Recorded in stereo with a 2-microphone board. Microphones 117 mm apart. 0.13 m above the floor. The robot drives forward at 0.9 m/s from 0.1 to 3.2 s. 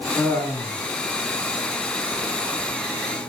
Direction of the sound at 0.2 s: 20° left (ahead or behind).